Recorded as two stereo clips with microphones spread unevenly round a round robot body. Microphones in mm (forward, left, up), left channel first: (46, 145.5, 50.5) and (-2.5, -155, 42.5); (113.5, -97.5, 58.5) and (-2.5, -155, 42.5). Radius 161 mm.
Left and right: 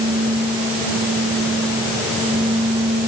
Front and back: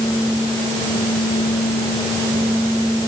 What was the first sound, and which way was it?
Only background noise.